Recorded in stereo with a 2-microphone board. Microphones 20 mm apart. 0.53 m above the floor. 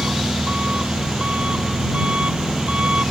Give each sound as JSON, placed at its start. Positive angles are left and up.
{"t": 0.0, "sound": "an engine running", "side_deg": -65}